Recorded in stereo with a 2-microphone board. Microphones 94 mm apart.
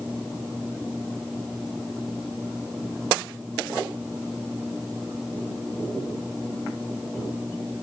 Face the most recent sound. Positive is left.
No sound to turn to.